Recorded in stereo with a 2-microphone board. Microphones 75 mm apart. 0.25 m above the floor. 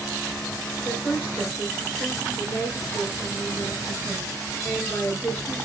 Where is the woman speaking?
30° left (ahead or behind), 4 m.